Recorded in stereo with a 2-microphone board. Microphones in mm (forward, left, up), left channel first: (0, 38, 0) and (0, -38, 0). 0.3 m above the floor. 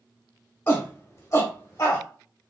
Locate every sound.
0.7 s a shout: 30° left (ahead or behind), 1.2 m; by 2.0 s 40° left (ahead or behind), 1.3 m